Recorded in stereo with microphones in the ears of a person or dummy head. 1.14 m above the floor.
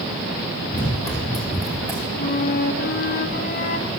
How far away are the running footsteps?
About 2 m.